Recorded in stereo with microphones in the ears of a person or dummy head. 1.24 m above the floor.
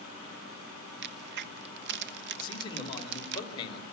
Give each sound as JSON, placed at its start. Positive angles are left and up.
{"t": 1.0, "sound": "a crack", "side_deg": -55, "distance_m": 1.2}
{"t": 2.4, "sound": "a man speaking", "side_deg": 35, "distance_m": 4.5}